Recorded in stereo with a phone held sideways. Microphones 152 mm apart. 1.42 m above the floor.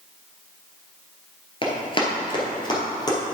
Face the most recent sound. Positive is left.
turn(degrees=25)  # may be behind; listen again after turning